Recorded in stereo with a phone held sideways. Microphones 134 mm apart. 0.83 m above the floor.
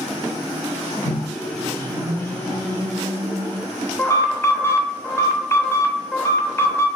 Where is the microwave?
20° left (ahead or behind), 2 m.